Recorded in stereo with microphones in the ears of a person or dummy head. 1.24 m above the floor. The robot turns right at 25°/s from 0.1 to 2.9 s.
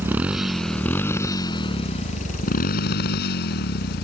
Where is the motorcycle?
10° right; by 4.0 s 60° left.